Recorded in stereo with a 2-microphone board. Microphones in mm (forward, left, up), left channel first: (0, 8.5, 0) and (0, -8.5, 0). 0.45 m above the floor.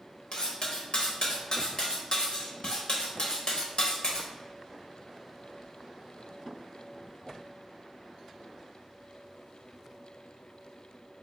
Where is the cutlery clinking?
50° left (ahead or behind), 0.8 m.